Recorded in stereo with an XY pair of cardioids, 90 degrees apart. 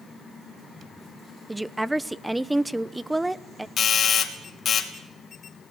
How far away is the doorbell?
About 3 m.